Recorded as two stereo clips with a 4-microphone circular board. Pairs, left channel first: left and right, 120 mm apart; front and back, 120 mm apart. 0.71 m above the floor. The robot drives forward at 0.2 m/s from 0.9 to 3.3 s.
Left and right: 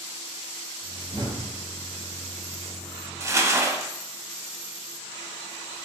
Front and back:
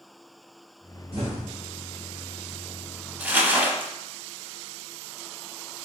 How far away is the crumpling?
About 0.6 m.